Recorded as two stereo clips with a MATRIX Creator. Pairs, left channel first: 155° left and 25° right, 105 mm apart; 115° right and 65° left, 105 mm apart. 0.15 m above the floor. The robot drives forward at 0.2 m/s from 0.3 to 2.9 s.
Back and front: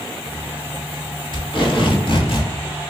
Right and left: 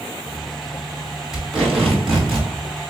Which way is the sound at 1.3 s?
155° left.